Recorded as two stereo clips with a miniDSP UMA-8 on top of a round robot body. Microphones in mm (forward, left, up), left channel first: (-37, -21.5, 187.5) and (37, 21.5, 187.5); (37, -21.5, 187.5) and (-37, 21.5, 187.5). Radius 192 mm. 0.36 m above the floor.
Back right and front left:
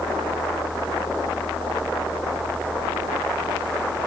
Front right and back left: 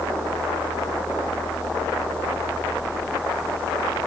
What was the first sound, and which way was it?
Only background noise.